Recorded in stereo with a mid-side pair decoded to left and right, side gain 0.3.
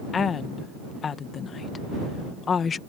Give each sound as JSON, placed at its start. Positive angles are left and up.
{"t": 0.1, "sound": "a woman speaking", "azimuth_deg": 70}